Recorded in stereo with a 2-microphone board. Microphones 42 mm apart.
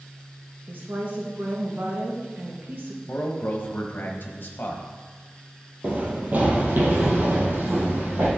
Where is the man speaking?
50° left (ahead or behind), 1.0 m.